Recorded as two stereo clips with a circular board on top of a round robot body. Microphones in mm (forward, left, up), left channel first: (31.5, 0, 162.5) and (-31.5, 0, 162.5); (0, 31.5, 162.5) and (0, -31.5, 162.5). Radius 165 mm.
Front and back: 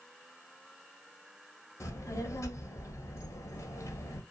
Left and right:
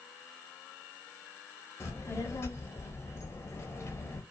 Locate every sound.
1.8 s a child speaking: 35° left, 0.7 m